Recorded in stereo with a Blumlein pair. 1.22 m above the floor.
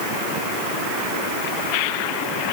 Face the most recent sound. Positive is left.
No sound to turn to.